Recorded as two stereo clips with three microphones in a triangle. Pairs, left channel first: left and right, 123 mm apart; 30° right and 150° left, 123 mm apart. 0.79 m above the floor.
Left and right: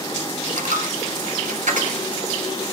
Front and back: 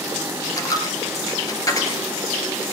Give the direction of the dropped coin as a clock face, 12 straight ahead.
3 o'clock.